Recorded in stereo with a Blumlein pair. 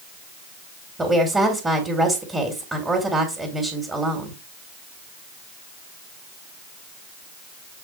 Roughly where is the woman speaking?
Ahead.